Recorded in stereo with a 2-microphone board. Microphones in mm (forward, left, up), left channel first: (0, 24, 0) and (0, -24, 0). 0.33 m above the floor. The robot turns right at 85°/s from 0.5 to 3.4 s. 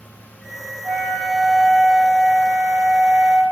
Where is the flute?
45° right, 1.4 m; by 3.4 s 175° left, 1.4 m.